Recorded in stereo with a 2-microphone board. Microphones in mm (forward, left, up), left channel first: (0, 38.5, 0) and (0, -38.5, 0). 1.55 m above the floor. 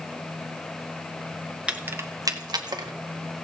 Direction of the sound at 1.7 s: 15° right (ahead or behind).